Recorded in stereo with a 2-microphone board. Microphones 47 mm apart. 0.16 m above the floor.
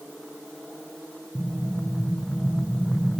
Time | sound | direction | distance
1.4 | an explosion | 5° left (ahead or behind) | 1.7 m